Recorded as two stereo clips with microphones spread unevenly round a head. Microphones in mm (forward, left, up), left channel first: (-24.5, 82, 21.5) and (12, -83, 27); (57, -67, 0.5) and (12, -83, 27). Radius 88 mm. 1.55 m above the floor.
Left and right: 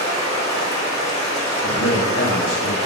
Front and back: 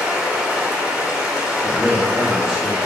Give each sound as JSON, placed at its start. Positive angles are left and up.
{"t": 0.0, "sound": "running water", "azimuth_deg": 155, "distance_m": 1.9}
{"t": 1.6, "sound": "a man speaking", "azimuth_deg": 100, "distance_m": 1.3}